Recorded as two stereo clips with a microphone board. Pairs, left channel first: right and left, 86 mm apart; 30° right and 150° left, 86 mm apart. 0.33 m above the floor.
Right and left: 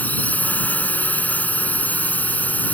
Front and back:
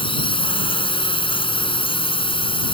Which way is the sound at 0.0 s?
20° right.